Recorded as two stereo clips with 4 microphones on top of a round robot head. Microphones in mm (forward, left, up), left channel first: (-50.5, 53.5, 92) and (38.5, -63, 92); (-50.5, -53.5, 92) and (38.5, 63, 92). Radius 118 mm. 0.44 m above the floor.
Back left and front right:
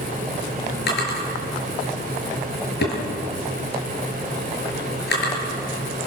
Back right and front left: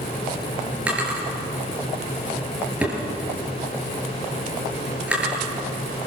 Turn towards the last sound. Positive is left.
turn(degrees=135)